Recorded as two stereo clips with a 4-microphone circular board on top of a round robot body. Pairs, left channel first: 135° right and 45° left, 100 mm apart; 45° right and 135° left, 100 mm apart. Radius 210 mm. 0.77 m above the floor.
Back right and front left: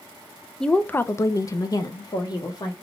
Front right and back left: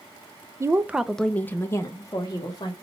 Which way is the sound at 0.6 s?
145° left.